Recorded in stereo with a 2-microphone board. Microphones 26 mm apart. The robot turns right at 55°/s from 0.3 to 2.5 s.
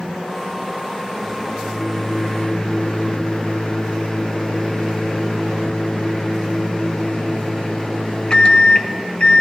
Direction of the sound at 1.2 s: Straight ahead.